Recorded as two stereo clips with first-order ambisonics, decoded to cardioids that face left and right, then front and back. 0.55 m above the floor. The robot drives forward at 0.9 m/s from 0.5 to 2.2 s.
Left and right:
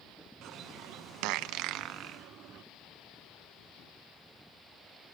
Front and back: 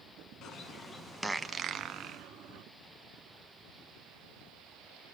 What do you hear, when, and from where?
0.4 s a bird: 45° right, 1.0 m; by 2.6 s 145° right, 1.1 m